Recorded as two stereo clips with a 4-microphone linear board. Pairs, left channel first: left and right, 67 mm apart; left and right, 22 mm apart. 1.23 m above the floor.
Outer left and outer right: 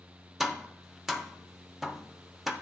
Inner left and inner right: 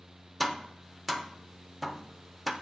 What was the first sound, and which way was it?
Tapping, 5° right (ahead or behind).